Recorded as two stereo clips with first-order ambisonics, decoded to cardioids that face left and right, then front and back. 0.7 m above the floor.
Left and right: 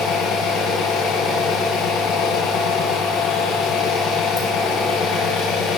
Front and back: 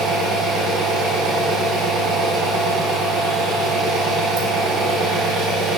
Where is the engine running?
140° left, 3.5 m.